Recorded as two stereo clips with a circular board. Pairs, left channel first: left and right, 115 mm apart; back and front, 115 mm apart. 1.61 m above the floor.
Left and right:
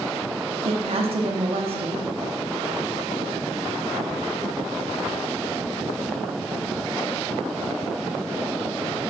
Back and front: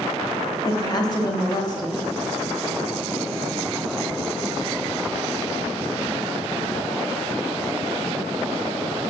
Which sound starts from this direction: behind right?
A woman speaking, at 0.7 s.